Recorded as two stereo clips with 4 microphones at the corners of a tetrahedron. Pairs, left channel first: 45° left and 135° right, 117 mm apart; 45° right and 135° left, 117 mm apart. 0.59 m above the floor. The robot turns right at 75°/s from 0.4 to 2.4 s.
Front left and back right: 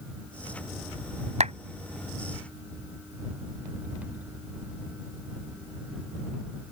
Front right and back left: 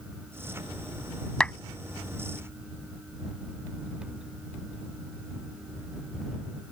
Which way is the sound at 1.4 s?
125° right.